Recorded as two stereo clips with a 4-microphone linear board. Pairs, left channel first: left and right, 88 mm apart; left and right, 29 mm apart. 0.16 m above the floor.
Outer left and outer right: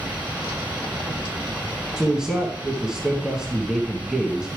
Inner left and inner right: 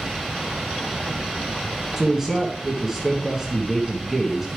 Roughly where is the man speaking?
Centre.